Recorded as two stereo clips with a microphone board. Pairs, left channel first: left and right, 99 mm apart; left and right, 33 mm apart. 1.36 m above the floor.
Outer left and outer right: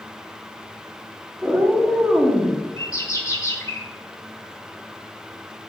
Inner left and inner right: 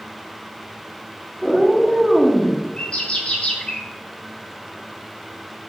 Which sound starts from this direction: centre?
A cat meowing, at 1.4 s.